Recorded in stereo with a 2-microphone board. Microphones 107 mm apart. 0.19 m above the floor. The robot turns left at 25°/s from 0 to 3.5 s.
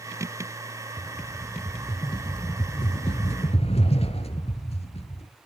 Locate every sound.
1.0 s a rattle: 165° left, 1.1 m; by 5.3 s 100° left, 1.1 m